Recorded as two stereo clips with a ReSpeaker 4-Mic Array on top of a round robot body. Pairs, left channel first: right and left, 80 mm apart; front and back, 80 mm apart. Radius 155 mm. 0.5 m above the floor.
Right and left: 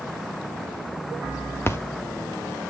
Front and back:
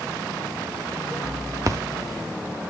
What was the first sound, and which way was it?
A splash, 145° right.